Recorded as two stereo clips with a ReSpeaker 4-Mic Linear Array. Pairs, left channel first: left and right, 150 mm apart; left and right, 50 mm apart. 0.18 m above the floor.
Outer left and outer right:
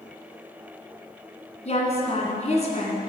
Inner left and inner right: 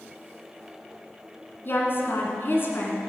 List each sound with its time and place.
1.6 s a woman speaking: 50° left (ahead or behind), 2 m